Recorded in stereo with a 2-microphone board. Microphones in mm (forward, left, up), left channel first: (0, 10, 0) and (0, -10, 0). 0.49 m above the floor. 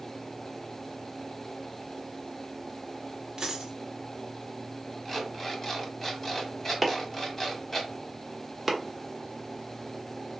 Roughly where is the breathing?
No breathing in this recording.